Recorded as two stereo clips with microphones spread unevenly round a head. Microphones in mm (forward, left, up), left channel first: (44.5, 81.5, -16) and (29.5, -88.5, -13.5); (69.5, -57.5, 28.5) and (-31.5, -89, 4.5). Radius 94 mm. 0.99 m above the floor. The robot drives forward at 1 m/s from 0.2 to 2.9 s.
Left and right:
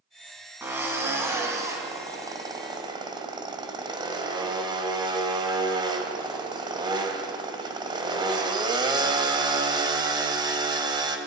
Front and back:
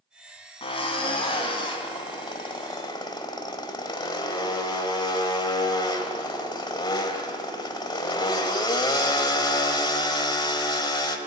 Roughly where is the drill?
Ahead.